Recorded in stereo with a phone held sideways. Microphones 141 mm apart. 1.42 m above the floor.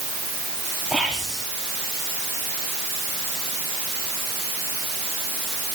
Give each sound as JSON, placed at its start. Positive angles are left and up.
{"t": 0.9, "sound": "whispering", "side_deg": -5, "distance_m": 3.5}